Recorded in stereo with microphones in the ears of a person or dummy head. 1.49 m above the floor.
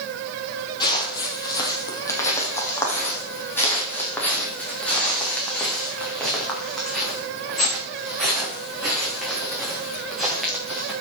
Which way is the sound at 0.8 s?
20° left (ahead or behind).